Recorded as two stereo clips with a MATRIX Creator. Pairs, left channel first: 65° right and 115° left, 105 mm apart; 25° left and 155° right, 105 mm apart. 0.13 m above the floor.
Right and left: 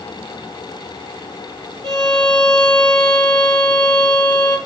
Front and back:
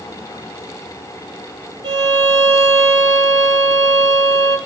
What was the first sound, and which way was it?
A violin, 115° right.